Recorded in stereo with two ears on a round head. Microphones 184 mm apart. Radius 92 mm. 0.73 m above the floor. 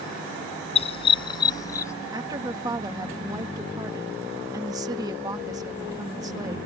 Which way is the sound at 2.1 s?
20° right (ahead or behind).